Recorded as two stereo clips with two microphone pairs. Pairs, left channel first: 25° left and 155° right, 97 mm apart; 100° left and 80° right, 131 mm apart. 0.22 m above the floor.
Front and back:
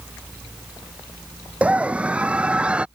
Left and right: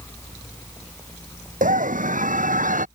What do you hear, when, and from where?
1.6 s a scream: 80° right; by 2.9 s 75° right